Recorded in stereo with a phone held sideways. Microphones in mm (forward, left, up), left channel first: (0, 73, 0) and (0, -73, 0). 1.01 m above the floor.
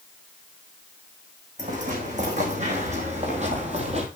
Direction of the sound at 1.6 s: 55° right (ahead or behind).